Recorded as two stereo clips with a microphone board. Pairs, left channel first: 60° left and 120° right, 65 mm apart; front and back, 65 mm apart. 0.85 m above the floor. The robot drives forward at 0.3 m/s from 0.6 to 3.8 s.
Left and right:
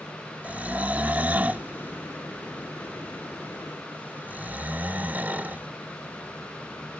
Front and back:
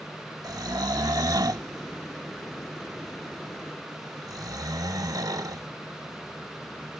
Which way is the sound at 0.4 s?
175° left.